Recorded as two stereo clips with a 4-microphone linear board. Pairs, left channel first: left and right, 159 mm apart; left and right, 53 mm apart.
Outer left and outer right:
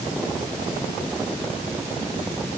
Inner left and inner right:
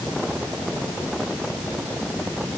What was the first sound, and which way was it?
Only background noise.